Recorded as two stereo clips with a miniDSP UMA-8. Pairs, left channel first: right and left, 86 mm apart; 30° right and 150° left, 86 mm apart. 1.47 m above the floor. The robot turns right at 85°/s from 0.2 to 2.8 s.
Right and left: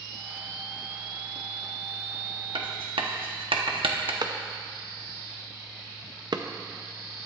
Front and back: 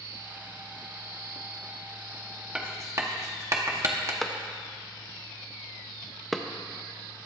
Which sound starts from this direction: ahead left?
A clap, at 4.2 s.